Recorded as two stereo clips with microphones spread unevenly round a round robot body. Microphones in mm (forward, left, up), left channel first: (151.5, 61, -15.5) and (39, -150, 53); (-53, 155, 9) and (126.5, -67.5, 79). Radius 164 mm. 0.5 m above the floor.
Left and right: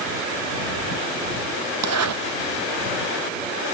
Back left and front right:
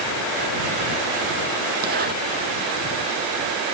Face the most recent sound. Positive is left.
turn(degrees=-115)